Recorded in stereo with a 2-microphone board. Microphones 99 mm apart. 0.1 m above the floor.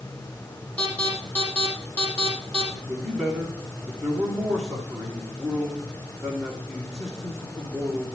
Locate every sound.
0.8 s an alarm: 15° left (ahead or behind), 6 m
2.8 s a man speaking: centre (ahead or behind), 6 m